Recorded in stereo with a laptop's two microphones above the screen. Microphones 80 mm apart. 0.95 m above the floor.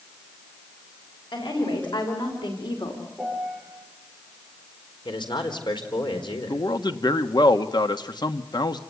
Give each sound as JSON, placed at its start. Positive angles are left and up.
{"t": 1.3, "sound": "a woman speaking", "side_deg": 80, "distance_m": 5.5}
{"t": 3.2, "sound": "a piano", "side_deg": 5, "distance_m": 8.5}
{"t": 5.0, "sound": "a man speaking", "side_deg": 75, "distance_m": 4.0}
{"t": 6.5, "sound": "a man speaking", "side_deg": 65, "distance_m": 1.4}